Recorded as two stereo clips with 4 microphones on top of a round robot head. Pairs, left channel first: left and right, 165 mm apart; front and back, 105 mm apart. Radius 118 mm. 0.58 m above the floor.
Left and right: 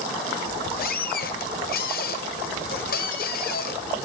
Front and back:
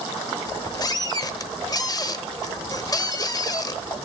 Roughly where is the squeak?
Ahead left.